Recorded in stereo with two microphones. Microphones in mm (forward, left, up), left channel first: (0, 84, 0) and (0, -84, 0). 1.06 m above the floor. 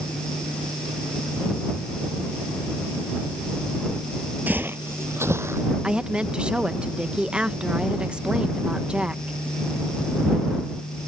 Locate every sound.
4.5 s footsteps: 10° right (ahead or behind); by 5.7 s 15° right (ahead or behind)
5.8 s a woman speaking: 5° right (ahead or behind)